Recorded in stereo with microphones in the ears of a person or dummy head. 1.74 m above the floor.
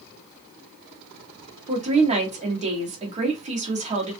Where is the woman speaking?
30° right (ahead or behind), 0.8 m.